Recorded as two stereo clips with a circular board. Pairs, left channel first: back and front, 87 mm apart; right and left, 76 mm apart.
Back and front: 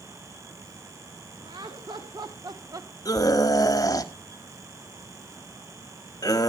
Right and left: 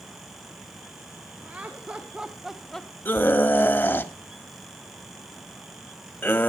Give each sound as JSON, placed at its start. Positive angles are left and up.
{"t": 1.4, "sound": "laughter", "azimuth_deg": 20, "distance_m": 1.5}
{"t": 3.0, "sound": "a scream", "azimuth_deg": -145, "distance_m": 1.3}